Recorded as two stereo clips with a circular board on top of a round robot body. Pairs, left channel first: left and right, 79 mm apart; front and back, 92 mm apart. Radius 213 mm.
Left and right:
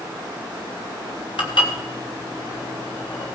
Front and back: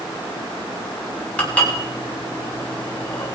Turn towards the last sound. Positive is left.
turn(degrees=75)